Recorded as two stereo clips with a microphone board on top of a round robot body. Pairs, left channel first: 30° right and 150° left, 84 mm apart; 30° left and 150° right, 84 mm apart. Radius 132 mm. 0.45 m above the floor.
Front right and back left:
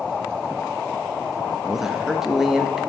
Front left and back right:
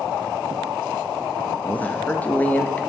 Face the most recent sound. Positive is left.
turn(degrees=70)